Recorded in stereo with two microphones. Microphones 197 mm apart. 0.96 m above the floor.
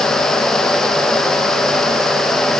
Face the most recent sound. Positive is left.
No sound to turn to.